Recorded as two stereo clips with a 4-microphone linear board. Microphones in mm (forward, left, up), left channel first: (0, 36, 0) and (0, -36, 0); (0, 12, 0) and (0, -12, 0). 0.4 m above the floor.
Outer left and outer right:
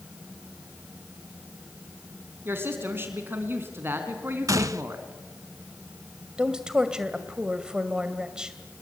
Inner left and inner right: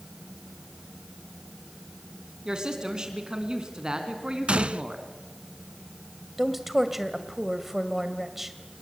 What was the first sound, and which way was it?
A woman speaking, 30° right (ahead or behind).